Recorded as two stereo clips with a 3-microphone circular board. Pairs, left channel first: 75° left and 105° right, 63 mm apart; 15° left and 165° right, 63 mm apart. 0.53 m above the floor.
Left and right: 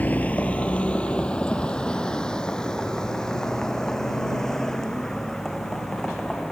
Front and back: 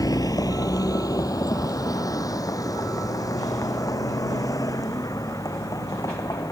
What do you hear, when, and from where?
0.0 s a vehicle: 10° left; by 6.5 s 10° right